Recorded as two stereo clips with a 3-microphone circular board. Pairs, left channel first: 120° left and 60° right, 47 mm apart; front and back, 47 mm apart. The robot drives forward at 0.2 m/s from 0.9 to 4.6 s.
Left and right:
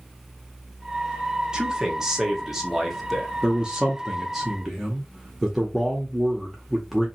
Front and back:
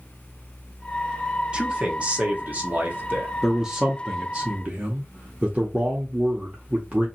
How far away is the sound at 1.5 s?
About 0.8 m.